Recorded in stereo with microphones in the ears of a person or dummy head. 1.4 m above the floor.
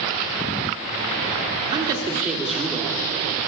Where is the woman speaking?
25° right (ahead or behind), 1.0 m; by 3.1 s 20° left (ahead or behind), 1.1 m.